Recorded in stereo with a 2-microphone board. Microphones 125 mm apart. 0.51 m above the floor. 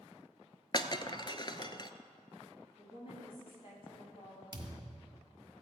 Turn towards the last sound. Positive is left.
turn(degrees=-35)  # may be behind; listen again after turning